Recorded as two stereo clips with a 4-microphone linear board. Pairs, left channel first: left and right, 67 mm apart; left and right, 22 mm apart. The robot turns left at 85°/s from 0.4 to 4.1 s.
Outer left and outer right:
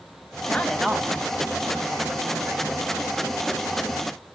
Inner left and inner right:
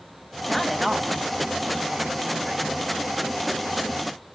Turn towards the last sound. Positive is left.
turn(degrees=85)